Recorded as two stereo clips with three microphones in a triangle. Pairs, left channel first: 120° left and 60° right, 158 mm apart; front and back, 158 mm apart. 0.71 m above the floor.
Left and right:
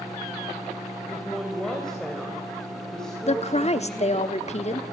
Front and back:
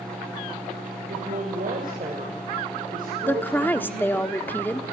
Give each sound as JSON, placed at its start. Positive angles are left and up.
{"t": 1.1, "sound": "a woman speaking", "azimuth_deg": -155, "distance_m": 3.5}
{"t": 3.3, "sound": "a woman speaking", "azimuth_deg": 75, "distance_m": 1.3}